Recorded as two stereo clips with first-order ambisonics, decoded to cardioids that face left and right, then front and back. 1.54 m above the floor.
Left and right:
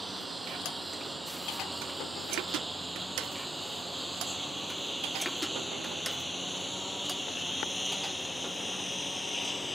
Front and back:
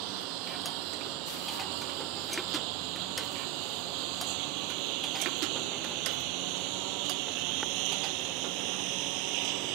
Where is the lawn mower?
175° right; by 9.8 s 170° left.